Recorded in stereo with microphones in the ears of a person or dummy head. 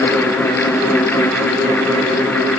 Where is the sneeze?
No sneeze in this recording.